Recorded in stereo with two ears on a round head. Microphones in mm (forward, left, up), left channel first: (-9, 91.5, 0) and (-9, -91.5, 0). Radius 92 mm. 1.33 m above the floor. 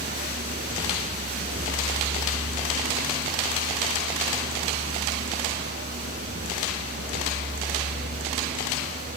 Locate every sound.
0.0 s a vehicle: 35° right (ahead or behind); by 9.2 s 40° right (ahead or behind)